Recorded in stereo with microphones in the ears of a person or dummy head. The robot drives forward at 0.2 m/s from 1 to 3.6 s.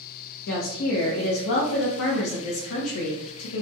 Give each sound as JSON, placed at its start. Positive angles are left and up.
{"t": 0.5, "sound": "a woman speaking", "side_deg": 70, "distance_m": 0.9}